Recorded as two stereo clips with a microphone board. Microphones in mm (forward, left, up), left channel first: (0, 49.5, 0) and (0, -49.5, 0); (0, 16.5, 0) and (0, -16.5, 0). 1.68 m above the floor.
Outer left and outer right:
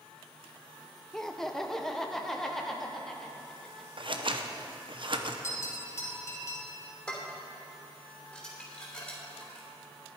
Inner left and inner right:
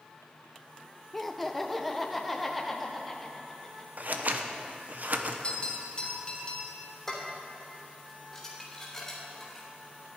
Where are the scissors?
55° right (ahead or behind), 0.8 m.